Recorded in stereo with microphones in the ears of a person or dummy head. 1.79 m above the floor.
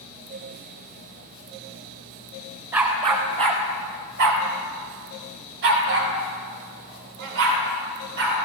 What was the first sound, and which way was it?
A dog barking, 15° right (ahead or behind).